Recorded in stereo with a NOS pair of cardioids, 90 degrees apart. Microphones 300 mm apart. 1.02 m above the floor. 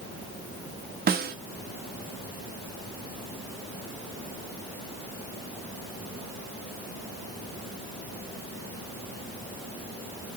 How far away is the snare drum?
About 0.7 m.